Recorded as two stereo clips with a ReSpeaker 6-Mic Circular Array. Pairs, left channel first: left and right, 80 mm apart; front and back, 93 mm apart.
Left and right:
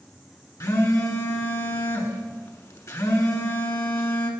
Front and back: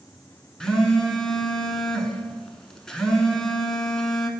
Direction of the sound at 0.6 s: 80° left.